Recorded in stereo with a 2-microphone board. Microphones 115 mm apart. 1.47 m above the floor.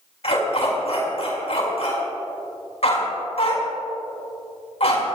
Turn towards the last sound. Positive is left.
turn(degrees=65)  # may be behind; listen again after turning